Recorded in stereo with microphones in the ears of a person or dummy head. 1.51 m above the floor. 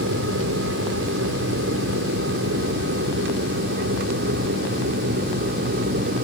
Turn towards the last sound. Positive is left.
turn(degrees=-55)  # may be behind; listen again after turning